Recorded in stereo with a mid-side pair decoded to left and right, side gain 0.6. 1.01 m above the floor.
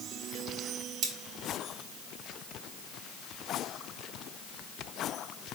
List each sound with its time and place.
1.0 s cutlery clinking: 70° right, 1.4 m